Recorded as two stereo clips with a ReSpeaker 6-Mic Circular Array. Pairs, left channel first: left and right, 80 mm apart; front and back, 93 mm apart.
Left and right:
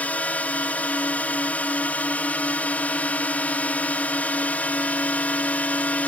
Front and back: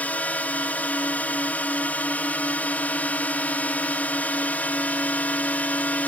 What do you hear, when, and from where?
0.0 s a drone: 50° left